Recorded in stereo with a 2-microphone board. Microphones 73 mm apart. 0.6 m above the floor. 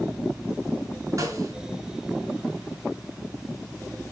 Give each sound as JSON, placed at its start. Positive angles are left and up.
{"t": 1.2, "sound": "a snare drum", "side_deg": -45, "distance_m": 3.0}